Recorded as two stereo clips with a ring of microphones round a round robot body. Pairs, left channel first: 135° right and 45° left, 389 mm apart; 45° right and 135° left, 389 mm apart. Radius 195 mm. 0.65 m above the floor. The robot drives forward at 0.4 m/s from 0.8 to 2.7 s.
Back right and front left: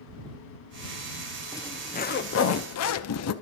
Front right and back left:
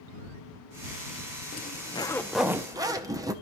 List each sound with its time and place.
1.5 s a zipper: 65° right, 0.6 m; by 3.3 s 150° right, 0.7 m